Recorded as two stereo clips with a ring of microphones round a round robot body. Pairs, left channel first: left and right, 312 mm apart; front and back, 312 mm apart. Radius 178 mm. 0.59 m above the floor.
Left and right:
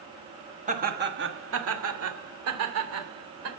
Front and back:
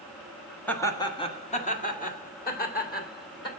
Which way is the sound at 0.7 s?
80° right.